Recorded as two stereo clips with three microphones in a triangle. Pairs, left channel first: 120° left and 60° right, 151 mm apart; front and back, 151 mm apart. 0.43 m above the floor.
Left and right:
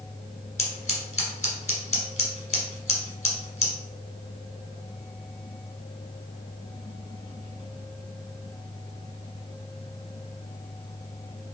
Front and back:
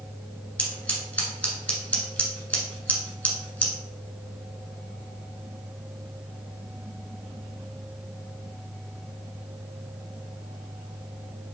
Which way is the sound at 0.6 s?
80° left.